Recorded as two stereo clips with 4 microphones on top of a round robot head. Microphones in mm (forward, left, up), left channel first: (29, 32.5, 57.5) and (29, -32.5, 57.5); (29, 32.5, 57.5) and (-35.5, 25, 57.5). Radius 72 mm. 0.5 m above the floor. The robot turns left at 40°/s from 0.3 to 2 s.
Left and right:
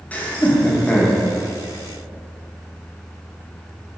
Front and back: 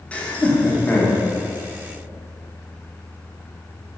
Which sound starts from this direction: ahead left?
Laughter, at 0.1 s.